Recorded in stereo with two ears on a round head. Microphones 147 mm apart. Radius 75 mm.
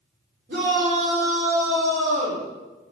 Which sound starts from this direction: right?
A shout, at 0.5 s.